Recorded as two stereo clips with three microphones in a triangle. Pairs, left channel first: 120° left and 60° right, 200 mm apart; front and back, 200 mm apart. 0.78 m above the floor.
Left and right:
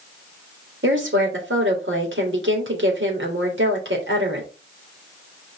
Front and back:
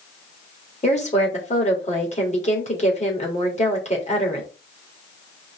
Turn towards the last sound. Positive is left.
turn(degrees=-55)